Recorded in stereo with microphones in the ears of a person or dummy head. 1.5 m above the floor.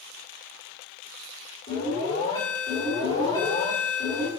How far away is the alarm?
About 3.5 m.